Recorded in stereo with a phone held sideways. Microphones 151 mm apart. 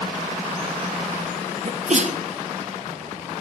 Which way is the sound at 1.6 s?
55° right (ahead or behind).